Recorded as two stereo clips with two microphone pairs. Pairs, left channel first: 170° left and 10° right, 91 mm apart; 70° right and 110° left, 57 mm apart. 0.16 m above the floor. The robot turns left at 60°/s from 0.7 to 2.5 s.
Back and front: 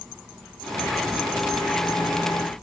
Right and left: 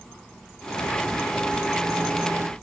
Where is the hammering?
No hammering in this recording.